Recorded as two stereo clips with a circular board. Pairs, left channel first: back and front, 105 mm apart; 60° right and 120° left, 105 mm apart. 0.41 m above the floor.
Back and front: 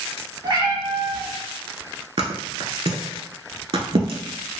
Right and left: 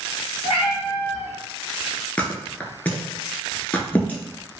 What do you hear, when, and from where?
0.4 s a cat meowing: 45° right, 0.6 m
2.2 s a thud: 10° left, 0.5 m